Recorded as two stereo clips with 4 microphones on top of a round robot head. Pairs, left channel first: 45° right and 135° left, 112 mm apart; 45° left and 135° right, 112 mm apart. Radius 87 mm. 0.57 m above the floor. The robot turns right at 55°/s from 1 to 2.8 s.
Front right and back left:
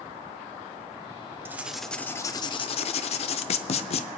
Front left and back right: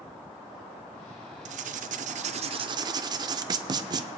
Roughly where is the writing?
Behind right.